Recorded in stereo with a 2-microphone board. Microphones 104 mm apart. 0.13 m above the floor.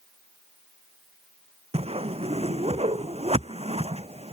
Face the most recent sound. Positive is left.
turn(degrees=-75)  # may be behind; listen again after turning